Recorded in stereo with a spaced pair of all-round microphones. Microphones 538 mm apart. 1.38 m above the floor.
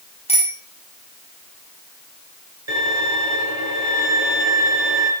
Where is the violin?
55° right (ahead or behind), 8 m.